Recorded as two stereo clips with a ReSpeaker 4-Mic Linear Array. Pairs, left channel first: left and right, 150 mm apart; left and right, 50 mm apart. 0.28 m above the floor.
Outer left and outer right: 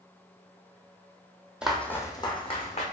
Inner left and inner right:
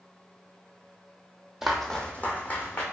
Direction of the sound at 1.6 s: 5° right (ahead or behind).